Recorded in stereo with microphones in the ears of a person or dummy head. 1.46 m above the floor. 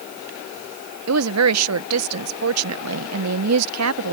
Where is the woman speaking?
80° right.